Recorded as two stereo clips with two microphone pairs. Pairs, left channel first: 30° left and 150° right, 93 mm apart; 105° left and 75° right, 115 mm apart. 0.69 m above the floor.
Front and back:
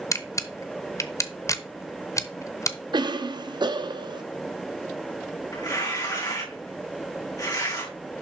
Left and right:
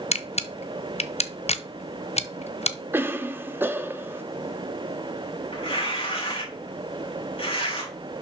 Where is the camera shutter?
85° left, 0.7 m.